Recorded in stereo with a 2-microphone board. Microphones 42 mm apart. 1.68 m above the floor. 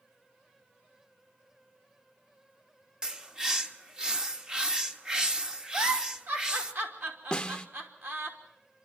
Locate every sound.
3.0 s a bird: 15° right (ahead or behind), 1.1 m
5.7 s a giggle: 55° right (ahead or behind), 2.5 m
7.3 s a snare drum: 20° left (ahead or behind), 1.1 m